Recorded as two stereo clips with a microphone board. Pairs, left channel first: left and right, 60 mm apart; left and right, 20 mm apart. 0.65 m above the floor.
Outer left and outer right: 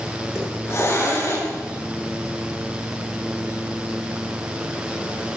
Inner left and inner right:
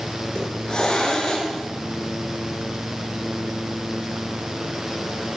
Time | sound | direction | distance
0.3 | a hiss | 50° left (ahead or behind) | 9 m